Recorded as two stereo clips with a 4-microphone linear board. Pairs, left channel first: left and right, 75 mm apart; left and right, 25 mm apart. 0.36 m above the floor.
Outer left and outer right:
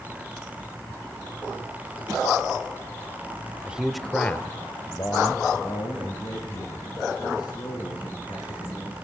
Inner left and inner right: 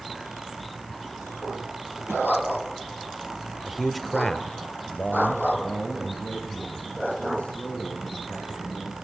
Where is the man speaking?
20° right (ahead or behind), 1.2 m; by 8.9 s 80° left, 6.5 m.